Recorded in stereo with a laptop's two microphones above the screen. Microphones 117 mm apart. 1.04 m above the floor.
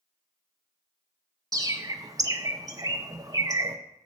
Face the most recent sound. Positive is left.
turn(degrees=-30)  # may be behind; listen again after turning